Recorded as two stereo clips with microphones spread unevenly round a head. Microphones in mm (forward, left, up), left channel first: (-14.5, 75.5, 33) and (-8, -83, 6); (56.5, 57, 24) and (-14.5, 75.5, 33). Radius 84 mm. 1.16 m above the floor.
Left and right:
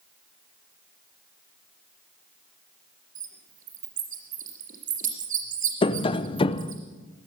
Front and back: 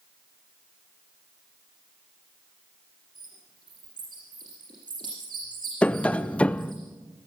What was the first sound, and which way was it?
A bird, 130° right.